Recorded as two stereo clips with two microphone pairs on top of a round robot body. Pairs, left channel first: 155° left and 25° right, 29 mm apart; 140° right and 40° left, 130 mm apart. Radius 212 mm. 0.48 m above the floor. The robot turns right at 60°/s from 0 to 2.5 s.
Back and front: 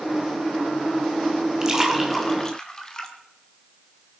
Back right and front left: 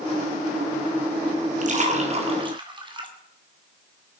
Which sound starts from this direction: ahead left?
A splash, at 1.6 s.